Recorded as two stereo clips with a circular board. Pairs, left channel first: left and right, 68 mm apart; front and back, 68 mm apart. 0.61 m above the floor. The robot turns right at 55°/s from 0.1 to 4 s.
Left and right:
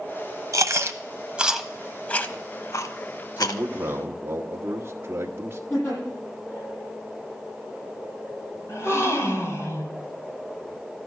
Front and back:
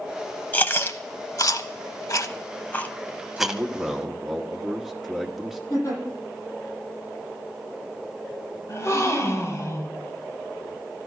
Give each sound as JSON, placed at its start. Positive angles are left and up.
{"t": 0.5, "sound": "chewing", "azimuth_deg": -65, "distance_m": 0.8}
{"t": 3.4, "sound": "a man speaking", "azimuth_deg": -135, "distance_m": 1.2}
{"t": 5.7, "sound": "a giggle", "azimuth_deg": 40, "distance_m": 9.0}
{"t": 8.7, "sound": "a gasp", "azimuth_deg": 45, "distance_m": 2.5}